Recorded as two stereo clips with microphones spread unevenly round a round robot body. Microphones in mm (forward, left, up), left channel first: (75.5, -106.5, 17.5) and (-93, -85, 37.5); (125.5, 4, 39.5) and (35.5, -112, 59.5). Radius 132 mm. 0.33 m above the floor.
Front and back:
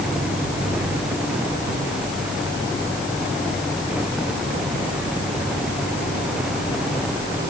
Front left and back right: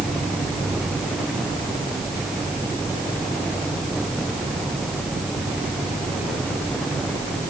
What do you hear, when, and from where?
Only background noise.